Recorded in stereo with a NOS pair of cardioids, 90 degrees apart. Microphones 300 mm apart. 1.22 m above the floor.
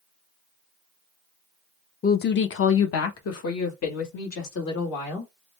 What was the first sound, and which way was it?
A woman speaking, 30° left.